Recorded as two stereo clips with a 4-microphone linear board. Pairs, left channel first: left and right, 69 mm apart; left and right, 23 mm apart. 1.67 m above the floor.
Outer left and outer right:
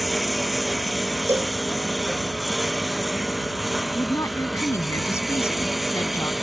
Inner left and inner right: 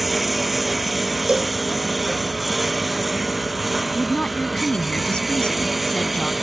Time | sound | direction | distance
0.0 | a lawn mower | centre (ahead or behind) | ?
1.3 | a cowbell | 40° right (ahead or behind) | ?
4.0 | a woman speaking | 40° left (ahead or behind) | ?